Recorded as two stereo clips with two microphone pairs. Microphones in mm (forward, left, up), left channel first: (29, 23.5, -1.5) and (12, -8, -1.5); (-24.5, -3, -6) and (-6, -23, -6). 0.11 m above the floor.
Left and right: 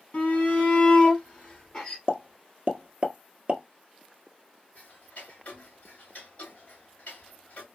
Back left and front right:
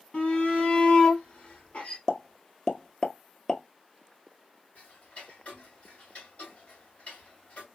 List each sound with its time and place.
0.1 s a shout: 100° left, 2.5 m; by 2.0 s 130° left, 2 m
2.1 s a pop: 165° right, 0.9 m
4.8 s ticking: 110° left, 3 m